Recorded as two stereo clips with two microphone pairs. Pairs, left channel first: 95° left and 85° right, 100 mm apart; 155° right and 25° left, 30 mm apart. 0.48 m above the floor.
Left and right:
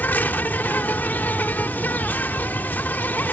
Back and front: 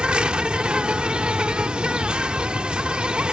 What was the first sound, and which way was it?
An insect, 40° left.